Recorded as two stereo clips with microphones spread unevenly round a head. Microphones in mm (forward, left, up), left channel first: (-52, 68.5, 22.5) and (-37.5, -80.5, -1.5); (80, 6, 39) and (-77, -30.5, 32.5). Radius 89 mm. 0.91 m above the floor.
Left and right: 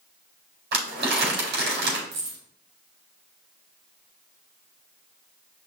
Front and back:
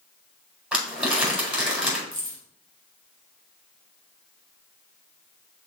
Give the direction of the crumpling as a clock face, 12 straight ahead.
3 o'clock.